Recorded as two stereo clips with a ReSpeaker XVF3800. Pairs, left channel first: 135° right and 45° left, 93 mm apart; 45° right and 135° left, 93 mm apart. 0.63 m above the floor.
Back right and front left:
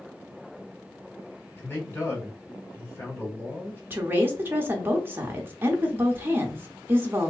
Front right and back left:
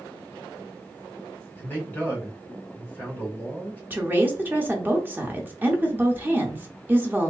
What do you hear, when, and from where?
1.6 s a man speaking: 95° right, 1.3 m
3.9 s a woman speaking: 85° left, 0.8 m